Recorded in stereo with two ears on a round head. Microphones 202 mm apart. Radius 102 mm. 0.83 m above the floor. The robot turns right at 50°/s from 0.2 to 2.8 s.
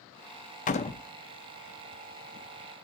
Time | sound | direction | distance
0.7 | a door slam | 35° left (ahead or behind) | 0.8 m